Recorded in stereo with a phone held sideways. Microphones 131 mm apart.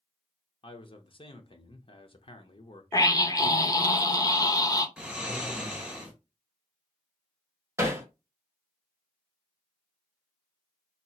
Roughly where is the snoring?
Centre.